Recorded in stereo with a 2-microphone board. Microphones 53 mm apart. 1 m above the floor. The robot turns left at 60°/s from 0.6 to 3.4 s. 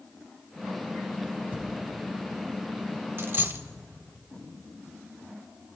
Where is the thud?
35° right (ahead or behind), 1.4 m; by 3.7 s 70° left (ahead or behind), 1.4 m.